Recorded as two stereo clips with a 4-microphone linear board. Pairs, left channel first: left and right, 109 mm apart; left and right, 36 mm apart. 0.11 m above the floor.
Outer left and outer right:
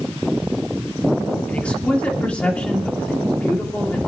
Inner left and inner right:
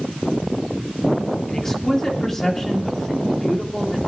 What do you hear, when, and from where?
1.5 s a man speaking: 10° left (ahead or behind), 2.5 m